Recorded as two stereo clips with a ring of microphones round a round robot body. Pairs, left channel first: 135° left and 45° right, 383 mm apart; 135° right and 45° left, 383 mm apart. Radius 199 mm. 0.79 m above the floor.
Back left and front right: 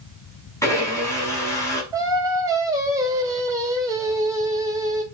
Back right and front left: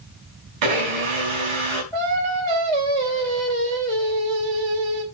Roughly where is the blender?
Ahead left.